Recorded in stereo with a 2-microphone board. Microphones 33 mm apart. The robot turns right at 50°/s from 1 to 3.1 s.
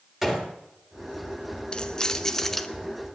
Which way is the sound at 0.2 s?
5° right (ahead or behind).